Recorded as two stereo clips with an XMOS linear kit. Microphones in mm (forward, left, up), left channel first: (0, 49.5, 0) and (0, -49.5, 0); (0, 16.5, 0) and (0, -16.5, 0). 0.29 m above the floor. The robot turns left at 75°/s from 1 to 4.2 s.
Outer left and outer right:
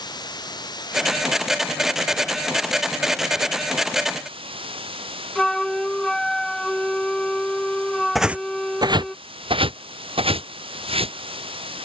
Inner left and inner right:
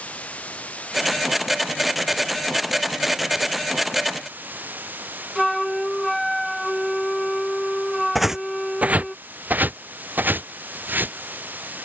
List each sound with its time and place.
0.0 s running water: 130° left; by 11.9 s 110° right
5.3 s a flute: 5° left (ahead or behind)
8.2 s footsteps: centre (ahead or behind); by 11.2 s 85° right